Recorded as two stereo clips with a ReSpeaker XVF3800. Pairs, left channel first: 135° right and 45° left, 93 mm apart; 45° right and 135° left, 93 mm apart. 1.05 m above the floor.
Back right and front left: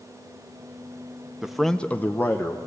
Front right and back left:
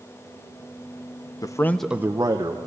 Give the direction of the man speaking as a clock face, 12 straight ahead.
1 o'clock.